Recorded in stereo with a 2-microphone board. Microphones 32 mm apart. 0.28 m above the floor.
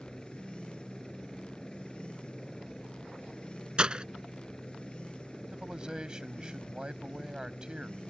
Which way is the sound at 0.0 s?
20° left (ahead or behind).